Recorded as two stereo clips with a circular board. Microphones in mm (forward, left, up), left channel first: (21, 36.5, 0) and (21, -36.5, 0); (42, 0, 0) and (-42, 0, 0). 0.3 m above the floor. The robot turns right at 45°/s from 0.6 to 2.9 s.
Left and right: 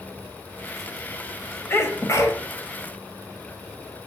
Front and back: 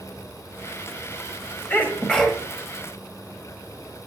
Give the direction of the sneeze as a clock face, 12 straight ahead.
10 o'clock.